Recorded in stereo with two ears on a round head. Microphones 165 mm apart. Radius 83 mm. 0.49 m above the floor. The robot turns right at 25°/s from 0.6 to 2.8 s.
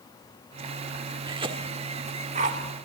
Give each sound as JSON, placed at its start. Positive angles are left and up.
{"t": 1.3, "sound": "a cough", "side_deg": -25, "distance_m": 1.3}